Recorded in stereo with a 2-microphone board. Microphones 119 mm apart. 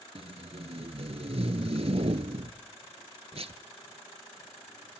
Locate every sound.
0.1 s tape being pulled: 60° right (ahead or behind), 0.9 m